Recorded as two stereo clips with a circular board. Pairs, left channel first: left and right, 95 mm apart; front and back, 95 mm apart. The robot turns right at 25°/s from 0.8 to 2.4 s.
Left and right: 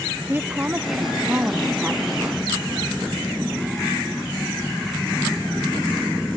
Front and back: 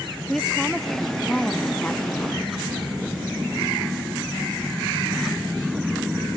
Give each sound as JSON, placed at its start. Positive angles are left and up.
{"t": 0.3, "sound": "a woman speaking", "azimuth_deg": -85}